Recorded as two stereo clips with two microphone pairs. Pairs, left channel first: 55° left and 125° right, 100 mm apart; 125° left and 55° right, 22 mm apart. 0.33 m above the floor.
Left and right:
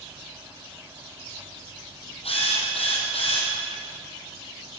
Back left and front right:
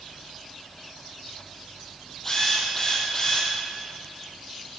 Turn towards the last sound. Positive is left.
turn(degrees=50)